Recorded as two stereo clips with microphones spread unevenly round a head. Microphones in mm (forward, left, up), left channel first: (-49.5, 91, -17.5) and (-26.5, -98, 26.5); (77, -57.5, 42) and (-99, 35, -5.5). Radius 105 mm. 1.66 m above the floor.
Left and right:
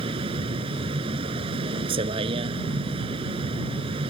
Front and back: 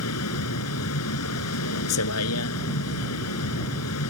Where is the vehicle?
20° right.